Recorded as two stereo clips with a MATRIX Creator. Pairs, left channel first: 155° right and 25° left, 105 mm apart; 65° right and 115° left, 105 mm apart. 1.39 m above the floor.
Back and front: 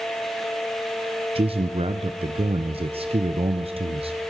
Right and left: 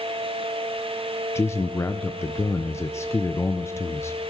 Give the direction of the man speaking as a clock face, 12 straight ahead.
12 o'clock.